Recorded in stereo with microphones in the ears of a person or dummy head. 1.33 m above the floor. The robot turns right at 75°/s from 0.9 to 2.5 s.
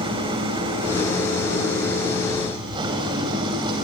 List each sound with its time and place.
0.0 s an engine running: 150° right, 2.5 m; by 3.8 s 30° right, 2.5 m